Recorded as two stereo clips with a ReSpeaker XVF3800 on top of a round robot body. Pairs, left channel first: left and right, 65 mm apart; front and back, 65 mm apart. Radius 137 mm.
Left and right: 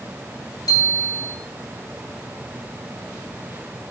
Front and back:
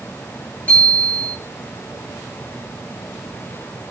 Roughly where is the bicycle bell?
Left.